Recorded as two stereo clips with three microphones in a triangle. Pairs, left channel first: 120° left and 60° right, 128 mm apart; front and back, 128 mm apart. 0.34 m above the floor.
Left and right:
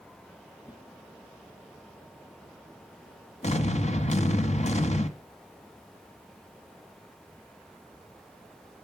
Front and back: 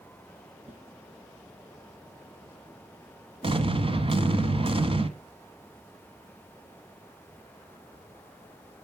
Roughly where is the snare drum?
Behind.